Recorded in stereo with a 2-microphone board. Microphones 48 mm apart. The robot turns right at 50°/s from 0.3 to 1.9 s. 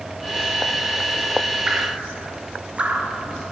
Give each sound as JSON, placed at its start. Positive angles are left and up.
{"t": 1.7, "sound": "dripping", "side_deg": -15, "distance_m": 1.4}